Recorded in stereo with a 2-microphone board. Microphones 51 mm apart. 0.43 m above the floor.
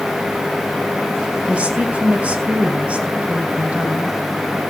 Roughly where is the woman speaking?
Right.